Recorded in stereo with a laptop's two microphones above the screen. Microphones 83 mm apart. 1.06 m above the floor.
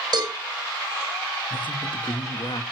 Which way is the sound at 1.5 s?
75° left (ahead or behind).